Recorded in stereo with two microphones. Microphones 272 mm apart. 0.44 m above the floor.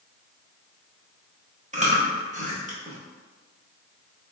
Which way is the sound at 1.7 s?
25° right (ahead or behind).